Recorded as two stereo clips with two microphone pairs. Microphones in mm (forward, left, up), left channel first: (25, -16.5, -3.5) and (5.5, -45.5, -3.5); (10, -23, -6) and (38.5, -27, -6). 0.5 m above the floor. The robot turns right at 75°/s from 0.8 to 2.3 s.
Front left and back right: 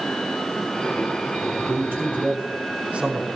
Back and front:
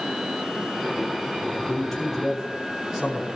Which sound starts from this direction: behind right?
A man speaking, at 1.7 s.